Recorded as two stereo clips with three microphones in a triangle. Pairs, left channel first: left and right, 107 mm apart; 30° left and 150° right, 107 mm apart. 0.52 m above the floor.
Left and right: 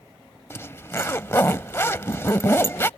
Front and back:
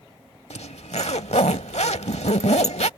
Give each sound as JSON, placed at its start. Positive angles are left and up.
{"t": 0.5, "sound": "a zipper", "azimuth_deg": 25}